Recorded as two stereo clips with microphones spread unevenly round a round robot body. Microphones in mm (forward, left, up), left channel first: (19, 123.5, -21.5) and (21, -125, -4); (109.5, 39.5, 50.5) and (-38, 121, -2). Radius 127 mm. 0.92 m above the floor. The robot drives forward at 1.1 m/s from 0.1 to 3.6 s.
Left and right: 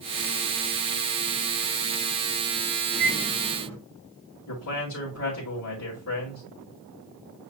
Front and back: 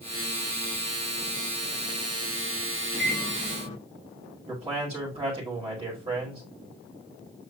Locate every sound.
2.9 s a microwave: 175° left, 3 m
4.5 s a man speaking: 110° left, 1.9 m